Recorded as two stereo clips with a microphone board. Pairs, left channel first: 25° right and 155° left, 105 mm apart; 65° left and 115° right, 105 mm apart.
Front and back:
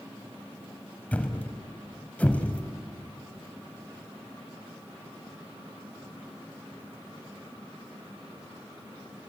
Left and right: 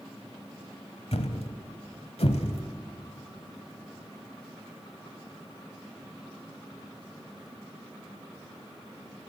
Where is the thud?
55° left, 1.3 m.